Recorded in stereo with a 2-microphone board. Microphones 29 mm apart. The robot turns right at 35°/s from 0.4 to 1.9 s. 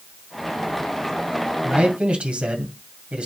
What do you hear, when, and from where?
1.6 s a man speaking: 55° right (ahead or behind), 2.5 m; by 3.3 s 45° right (ahead or behind), 2.5 m